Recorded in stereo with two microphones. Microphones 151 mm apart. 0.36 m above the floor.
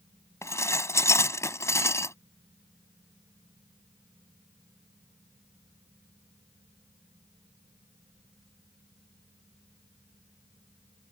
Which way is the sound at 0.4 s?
20° left (ahead or behind).